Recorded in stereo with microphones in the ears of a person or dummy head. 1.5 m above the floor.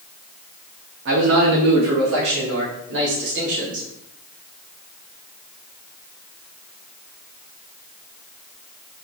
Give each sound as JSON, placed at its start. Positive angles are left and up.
{"t": 1.1, "sound": "a man speaking", "side_deg": -60, "distance_m": 0.6}